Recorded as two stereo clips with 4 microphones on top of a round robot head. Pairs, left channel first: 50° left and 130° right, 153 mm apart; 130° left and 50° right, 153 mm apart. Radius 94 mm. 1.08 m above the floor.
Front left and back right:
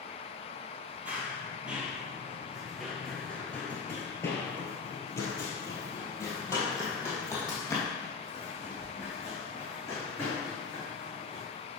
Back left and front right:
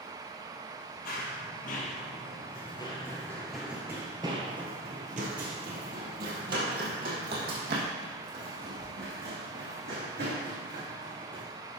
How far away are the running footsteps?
About 1.7 m.